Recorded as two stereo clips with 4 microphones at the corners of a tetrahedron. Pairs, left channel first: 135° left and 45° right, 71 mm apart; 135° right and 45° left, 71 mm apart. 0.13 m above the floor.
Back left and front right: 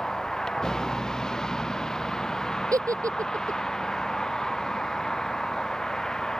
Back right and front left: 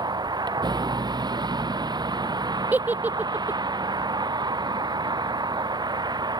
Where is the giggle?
20° right.